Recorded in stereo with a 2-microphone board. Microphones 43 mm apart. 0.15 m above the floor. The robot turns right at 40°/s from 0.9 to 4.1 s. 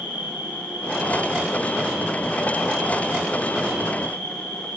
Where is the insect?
50° right, 5 m; by 4.8 s 75° left, 5 m.